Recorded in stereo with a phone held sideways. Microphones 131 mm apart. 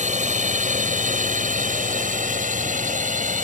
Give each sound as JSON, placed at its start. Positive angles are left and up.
{"t": 0.0, "sound": "a drone", "side_deg": -65}